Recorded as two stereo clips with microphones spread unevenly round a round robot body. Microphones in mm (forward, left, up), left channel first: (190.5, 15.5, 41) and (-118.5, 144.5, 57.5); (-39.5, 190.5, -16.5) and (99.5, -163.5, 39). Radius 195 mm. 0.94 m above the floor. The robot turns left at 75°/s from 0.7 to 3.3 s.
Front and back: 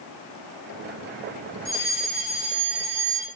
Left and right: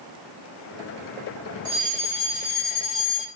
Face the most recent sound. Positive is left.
turn(degrees=115)